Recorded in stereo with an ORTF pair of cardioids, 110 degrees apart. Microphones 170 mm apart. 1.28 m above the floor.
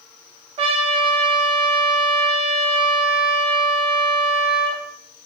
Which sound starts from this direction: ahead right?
A trumpet, at 0.6 s.